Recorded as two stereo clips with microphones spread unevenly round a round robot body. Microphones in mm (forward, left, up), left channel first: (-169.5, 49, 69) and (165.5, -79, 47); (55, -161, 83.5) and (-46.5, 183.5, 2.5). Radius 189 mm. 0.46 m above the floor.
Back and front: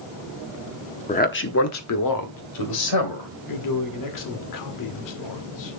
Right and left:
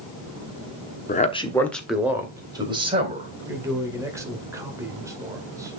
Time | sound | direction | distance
1.1 | a man speaking | 140° right | 1.1 m
3.5 | a man speaking | 175° left | 1.7 m